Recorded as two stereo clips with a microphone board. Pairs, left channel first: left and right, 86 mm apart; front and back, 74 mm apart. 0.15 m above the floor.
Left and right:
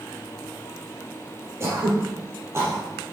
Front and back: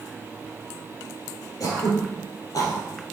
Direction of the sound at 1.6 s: 35° right.